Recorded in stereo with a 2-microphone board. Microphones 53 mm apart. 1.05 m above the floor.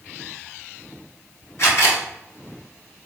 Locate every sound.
1.6 s a camera shutter: 60° left (ahead or behind), 1.8 m